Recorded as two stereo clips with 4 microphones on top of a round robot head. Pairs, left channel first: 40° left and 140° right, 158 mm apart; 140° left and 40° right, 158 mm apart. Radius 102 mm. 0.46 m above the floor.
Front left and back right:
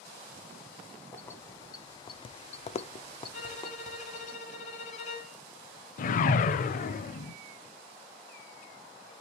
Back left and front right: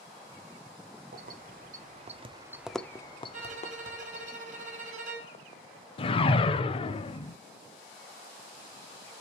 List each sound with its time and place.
1.1 s keys jangling: 35° right, 1.2 m; by 4.3 s 110° left, 1.4 m
3.3 s a violin: straight ahead, 2.5 m
6.0 s a whoosh: 80° left, 0.6 m